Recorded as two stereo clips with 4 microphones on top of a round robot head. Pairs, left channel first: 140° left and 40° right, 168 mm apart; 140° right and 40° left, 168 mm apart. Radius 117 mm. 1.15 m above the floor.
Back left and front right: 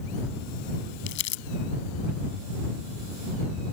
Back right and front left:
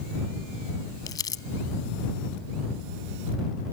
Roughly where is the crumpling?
Behind left.